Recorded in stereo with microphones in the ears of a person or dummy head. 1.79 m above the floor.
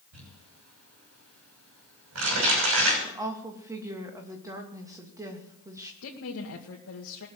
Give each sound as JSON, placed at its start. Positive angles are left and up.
{"t": 0.1, "sound": "crumpling", "side_deg": -80, "distance_m": 6.0}
{"t": 3.0, "sound": "a woman speaking", "side_deg": -20, "distance_m": 2.5}
{"t": 6.0, "sound": "a woman speaking", "side_deg": 75, "distance_m": 2.0}